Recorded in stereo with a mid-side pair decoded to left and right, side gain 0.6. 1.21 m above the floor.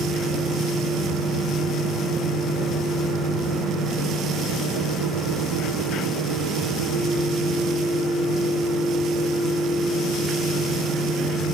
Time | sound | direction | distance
0.0 | a fan | 55° right | 1.0 m